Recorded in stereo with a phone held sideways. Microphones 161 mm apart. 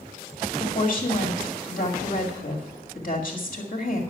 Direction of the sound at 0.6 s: 60° left (ahead or behind).